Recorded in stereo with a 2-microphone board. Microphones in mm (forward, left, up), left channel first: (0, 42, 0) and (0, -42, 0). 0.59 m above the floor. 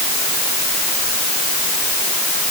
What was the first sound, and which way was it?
Only background noise.